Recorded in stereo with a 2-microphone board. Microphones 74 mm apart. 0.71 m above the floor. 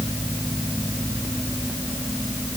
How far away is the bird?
No bird in this recording.